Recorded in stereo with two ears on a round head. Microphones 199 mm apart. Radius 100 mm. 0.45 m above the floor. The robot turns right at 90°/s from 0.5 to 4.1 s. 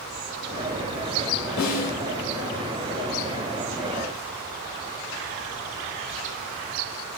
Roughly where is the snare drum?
Behind left.